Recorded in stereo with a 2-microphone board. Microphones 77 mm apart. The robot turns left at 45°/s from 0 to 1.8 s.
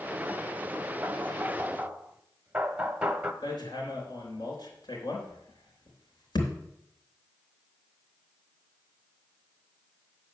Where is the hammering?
65° left (ahead or behind), 3 m.